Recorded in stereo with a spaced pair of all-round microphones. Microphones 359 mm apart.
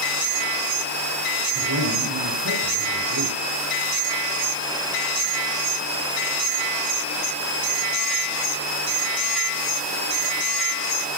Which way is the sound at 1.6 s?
75° right (ahead or behind).